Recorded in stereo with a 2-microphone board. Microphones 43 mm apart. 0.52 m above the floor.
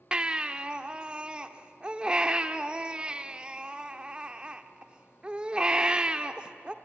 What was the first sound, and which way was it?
A baby crying, 20° right (ahead or behind).